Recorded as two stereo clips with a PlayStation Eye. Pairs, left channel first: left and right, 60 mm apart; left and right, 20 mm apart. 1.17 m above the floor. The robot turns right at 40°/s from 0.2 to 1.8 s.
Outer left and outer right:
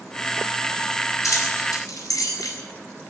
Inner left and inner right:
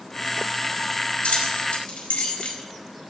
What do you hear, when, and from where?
1.2 s keys jangling: 75° left (ahead or behind), 4.5 m; by 2.6 s 85° left, 4.5 m